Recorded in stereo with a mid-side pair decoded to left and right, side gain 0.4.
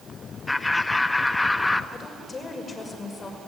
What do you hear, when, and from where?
0.5 s laughter: 20° left, 1.3 m
1.9 s a woman speaking: 40° left, 6 m